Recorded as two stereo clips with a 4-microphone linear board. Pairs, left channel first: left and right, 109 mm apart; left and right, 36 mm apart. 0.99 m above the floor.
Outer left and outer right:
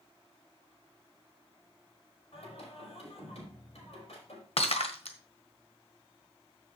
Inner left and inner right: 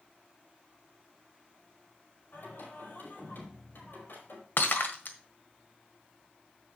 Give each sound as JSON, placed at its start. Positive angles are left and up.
{"t": 2.3, "sound": "singing", "side_deg": 75, "distance_m": 4.5}
{"t": 4.6, "sound": "breaking glass", "side_deg": 65, "distance_m": 1.4}